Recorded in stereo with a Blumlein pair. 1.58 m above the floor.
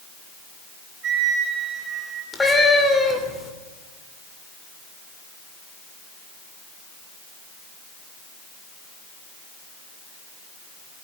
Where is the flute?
25° right, 10 m.